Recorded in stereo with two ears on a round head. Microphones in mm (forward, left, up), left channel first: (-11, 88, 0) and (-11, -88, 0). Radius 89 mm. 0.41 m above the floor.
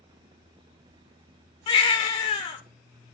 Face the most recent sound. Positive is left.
turn(degrees=25)  # may be behind; listen again after turning